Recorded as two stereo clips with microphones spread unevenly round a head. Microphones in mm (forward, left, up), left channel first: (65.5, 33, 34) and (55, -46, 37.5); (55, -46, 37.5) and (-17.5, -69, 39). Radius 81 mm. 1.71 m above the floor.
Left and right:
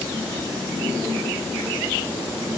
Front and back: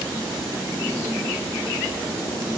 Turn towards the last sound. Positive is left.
No sound to turn to.